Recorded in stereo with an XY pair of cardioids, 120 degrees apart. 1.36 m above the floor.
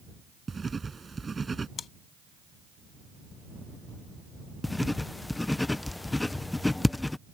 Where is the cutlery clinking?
No cutlery clinking in this recording.